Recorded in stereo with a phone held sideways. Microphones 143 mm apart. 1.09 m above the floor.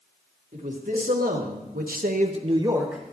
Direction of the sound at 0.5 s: 65° right (ahead or behind).